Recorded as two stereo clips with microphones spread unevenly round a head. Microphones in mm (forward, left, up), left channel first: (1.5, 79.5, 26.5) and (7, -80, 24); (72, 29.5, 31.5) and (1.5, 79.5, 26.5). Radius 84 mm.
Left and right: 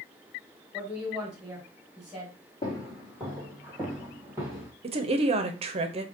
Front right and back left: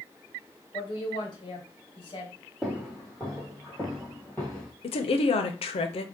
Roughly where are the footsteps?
Ahead left.